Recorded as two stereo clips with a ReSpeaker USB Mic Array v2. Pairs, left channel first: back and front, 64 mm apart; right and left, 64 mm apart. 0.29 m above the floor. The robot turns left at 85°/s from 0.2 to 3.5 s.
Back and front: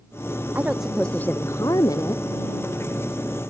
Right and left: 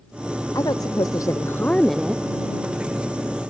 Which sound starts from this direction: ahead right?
A woman speaking, at 0.6 s.